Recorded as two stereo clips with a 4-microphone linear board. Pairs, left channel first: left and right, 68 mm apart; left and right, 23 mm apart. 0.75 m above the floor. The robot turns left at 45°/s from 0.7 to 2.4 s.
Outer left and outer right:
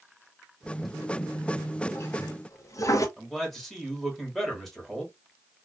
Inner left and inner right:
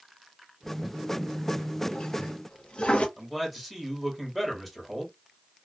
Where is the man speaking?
Centre (ahead or behind), 1.3 m.